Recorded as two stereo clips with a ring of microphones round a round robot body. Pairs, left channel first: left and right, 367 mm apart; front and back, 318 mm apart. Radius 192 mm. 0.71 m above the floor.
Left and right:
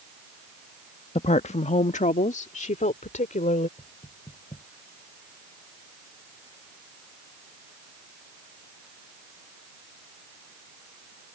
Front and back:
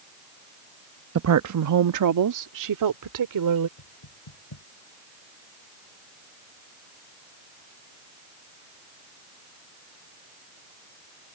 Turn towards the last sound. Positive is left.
turn(degrees=10)